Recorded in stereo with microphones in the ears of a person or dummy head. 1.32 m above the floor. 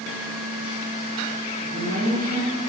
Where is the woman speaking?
45° right (ahead or behind), 0.8 m.